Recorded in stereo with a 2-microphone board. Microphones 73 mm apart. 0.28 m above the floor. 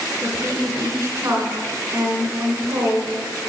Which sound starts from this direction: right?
A woman speaking, at 0.2 s.